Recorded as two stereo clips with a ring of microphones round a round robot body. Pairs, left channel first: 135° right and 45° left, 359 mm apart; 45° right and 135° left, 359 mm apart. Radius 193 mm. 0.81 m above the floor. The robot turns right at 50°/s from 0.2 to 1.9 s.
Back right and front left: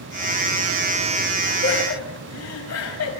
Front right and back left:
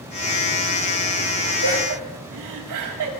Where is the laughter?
160° left, 7 m; by 3.1 s 175° left, 7 m.